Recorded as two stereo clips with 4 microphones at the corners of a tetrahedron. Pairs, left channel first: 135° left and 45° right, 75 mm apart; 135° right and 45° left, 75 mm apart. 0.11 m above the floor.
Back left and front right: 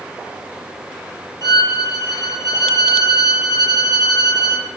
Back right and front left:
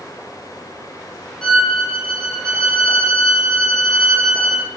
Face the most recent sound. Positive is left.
turn(degrees=145)